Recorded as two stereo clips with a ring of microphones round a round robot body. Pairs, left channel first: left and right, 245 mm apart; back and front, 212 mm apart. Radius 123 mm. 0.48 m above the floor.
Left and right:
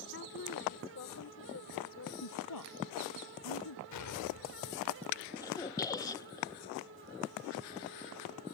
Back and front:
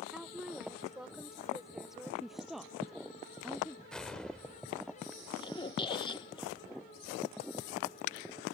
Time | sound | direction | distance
0.1 | a woman speaking | 85° left | ?
2.2 | a woman speaking | 90° left | ?
3.9 | an explosion | 95° left | ?
5.4 | a squeak | 145° left | ?